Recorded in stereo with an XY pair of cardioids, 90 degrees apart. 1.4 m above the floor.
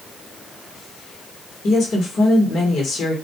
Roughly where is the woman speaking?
Ahead left.